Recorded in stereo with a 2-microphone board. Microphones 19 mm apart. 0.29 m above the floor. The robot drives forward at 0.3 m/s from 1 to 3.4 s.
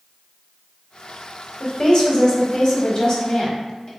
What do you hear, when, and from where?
1.6 s a woman speaking: 40° left (ahead or behind), 1.1 m; by 3.9 s 35° left (ahead or behind), 1.3 m